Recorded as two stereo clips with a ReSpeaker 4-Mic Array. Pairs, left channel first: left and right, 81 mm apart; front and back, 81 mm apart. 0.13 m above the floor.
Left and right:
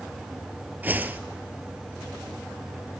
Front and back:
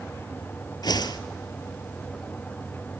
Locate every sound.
0.8 s a whoosh: 25° right, 0.9 m